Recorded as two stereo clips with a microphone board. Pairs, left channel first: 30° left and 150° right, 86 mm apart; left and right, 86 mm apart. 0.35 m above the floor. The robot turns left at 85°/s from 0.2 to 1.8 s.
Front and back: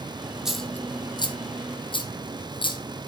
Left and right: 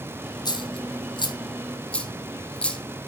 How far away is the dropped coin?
About 2.0 m.